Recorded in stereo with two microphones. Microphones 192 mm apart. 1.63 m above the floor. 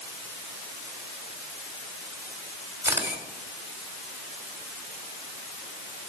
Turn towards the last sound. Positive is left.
turn(degrees=-15)  # may be behind; listen again after turning